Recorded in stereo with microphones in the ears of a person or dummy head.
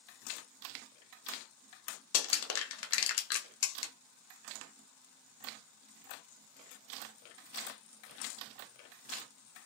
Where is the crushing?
80° left, 0.6 m.